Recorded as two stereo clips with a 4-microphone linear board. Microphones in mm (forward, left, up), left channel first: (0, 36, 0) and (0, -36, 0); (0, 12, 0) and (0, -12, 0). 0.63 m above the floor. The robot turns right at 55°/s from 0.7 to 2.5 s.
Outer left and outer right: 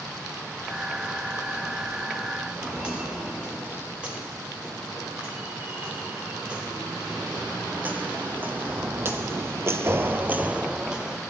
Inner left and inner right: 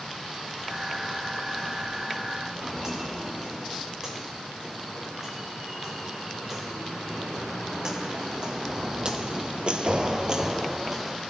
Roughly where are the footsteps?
Centre.